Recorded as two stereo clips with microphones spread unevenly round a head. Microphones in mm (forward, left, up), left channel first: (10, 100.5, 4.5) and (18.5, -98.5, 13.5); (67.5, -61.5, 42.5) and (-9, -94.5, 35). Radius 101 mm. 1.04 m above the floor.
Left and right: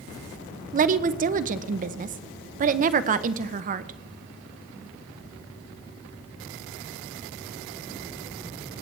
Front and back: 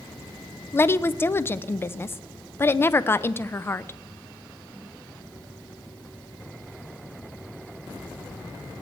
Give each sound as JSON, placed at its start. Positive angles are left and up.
{"t": 0.7, "sound": "a woman speaking", "azimuth_deg": -40, "distance_m": 0.5}